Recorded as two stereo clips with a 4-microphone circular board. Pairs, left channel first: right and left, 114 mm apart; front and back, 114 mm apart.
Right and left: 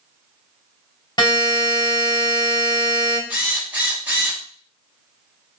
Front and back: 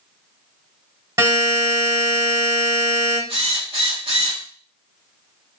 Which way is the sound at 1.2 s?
130° right.